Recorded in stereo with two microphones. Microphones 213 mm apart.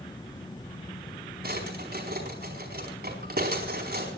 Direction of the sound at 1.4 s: 45° right (ahead or behind).